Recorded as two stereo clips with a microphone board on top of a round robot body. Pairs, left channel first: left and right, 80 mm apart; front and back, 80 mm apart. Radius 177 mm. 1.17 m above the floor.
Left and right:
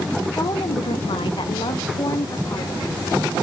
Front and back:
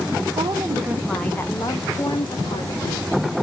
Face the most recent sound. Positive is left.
turn(degrees=30)